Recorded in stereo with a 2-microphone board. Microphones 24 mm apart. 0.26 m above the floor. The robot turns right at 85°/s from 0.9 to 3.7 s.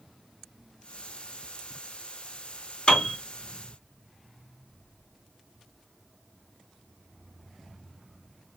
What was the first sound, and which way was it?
A piano, 35° left (ahead or behind).